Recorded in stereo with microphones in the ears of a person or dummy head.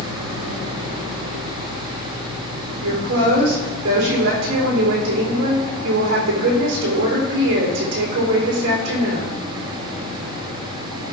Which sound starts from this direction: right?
A woman speaking, at 2.8 s.